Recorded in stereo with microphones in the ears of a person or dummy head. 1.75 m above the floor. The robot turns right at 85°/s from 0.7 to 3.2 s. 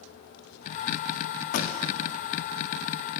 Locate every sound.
1.5 s a pop: 40° left (ahead or behind), 0.5 m; by 1.7 s 25° left (ahead or behind), 0.5 m